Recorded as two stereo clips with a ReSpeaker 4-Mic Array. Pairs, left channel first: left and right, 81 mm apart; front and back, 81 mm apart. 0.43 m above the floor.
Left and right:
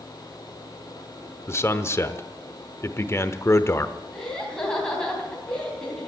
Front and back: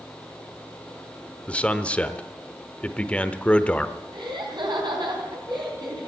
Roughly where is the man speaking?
Ahead left.